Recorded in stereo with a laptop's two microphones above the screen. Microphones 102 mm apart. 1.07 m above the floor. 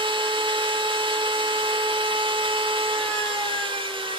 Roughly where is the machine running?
Right.